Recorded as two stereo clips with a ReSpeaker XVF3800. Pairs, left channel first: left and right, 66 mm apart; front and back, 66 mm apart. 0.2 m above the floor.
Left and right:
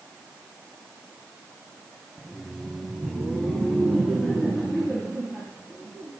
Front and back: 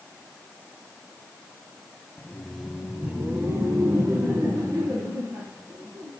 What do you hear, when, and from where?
2.2 s laughter: 10° right, 1.5 m; by 6.1 s 170° left, 5.5 m